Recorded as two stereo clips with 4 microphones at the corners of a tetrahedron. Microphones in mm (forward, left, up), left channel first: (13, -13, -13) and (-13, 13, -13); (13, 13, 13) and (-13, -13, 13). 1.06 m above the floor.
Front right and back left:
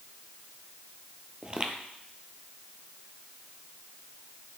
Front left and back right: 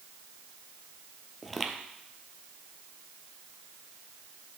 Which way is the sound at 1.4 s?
130° left.